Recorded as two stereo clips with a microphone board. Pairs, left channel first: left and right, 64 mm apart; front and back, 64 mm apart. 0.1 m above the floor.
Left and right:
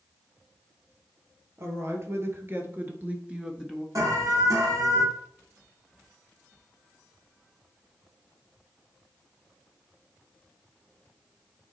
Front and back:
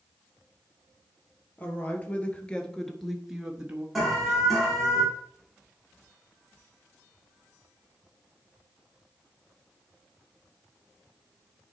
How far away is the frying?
I don't hear frying.